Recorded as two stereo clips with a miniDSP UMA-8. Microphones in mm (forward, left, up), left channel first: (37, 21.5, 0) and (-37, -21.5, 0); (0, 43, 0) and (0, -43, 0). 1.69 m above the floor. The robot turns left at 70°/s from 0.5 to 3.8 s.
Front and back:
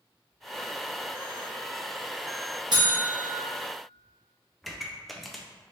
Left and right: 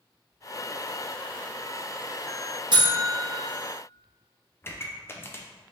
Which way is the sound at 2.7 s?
120° right.